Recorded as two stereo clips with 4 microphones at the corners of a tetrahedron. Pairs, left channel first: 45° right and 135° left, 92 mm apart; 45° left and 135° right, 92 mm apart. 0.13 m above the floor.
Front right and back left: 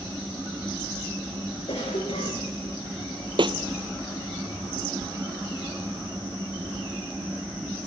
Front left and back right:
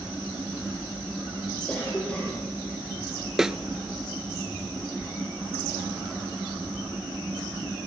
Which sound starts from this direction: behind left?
A snare drum, at 3.4 s.